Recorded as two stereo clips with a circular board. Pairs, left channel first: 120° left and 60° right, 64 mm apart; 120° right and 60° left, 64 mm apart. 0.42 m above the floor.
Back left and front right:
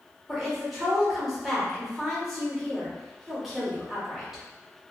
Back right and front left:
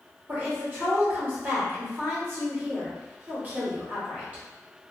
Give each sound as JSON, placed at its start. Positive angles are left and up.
{"t": 0.3, "sound": "a woman speaking", "azimuth_deg": 25, "distance_m": 1.1}